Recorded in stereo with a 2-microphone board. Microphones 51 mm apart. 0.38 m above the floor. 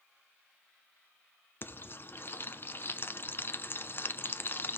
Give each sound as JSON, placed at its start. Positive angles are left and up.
{"t": 1.6, "sound": "frying", "side_deg": 45, "distance_m": 0.6}